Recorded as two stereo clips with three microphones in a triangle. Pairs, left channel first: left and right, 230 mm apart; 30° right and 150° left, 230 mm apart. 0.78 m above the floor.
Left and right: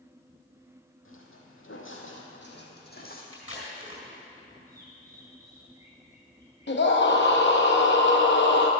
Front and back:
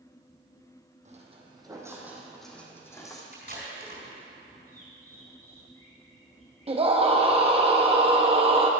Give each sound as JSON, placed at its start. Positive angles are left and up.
{"t": 1.1, "sound": "footsteps", "azimuth_deg": 95, "distance_m": 1.7}
{"t": 3.3, "sound": "tape being pulled", "azimuth_deg": 105, "distance_m": 4.0}
{"t": 4.7, "sound": "a bird", "azimuth_deg": -15, "distance_m": 4.0}
{"t": 6.7, "sound": "a scream", "azimuth_deg": 95, "distance_m": 0.6}